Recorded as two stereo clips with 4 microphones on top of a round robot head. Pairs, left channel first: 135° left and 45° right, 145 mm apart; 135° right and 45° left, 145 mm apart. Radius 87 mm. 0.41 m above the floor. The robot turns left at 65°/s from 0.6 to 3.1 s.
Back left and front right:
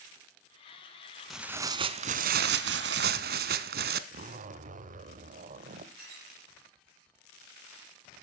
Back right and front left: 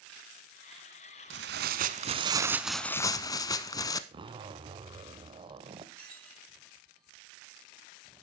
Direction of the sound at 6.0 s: 55° right.